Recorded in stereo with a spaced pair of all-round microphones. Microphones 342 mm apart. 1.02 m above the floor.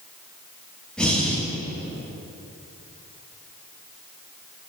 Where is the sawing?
I don't hear sawing.